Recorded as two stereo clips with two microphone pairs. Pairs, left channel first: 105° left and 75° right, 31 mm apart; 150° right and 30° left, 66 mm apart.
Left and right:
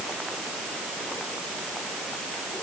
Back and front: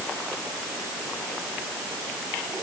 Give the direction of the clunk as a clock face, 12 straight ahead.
I don't hear a clunk.